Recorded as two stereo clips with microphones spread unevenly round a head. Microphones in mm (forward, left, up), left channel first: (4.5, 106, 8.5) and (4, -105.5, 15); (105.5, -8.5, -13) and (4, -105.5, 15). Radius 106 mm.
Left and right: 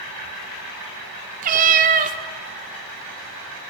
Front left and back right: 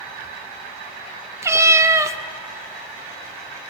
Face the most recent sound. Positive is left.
turn(degrees=-100)